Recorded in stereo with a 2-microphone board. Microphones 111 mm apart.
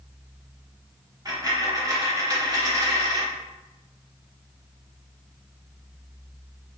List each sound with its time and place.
1.2 s a dropped coin: 35° right (ahead or behind), 0.7 m